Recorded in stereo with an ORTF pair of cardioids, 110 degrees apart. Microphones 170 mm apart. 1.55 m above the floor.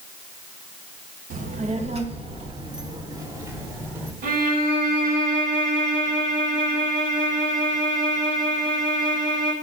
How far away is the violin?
About 4 m.